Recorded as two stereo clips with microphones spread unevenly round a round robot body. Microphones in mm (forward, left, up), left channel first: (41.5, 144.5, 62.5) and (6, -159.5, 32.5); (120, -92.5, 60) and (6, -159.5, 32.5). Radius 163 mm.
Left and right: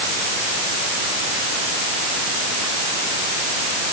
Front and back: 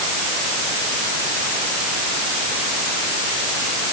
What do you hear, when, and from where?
Only background noise.